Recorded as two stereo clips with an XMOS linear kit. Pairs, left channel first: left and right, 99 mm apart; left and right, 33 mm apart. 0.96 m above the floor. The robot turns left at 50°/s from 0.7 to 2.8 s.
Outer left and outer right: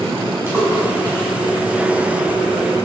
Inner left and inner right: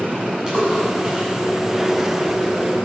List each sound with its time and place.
0.5 s a splash: 20° right (ahead or behind), 7.5 m; by 1.3 s 50° right (ahead or behind), 7.5 m